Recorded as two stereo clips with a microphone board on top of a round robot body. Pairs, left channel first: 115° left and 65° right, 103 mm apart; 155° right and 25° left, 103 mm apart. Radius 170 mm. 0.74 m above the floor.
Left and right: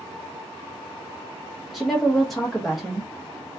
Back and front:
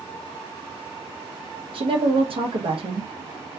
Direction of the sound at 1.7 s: 20° left.